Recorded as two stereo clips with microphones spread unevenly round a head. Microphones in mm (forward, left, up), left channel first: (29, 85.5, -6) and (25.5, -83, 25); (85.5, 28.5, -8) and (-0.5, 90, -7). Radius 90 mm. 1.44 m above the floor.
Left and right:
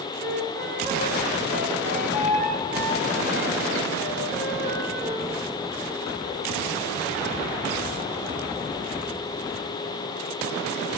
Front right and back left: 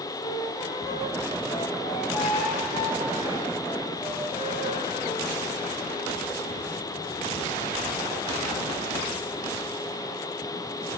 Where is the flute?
60° right, 7.5 m.